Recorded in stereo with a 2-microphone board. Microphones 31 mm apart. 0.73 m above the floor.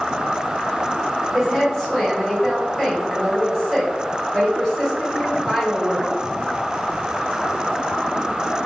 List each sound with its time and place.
1.3 s a woman speaking: centre (ahead or behind), 1.9 m